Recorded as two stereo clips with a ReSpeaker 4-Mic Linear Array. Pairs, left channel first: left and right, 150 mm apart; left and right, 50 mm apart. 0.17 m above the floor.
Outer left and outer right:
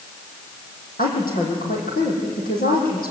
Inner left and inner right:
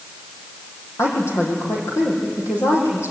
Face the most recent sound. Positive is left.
turn(degrees=80)